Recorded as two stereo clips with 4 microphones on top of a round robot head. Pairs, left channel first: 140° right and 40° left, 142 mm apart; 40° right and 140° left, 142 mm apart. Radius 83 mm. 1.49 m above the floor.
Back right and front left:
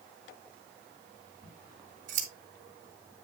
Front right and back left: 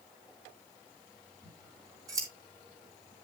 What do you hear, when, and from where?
1.4 s scissors: 75° left, 2.5 m